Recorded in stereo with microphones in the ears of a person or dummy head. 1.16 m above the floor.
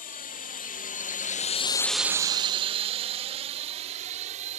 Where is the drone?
40° left (ahead or behind); by 4.6 s 35° right (ahead or behind).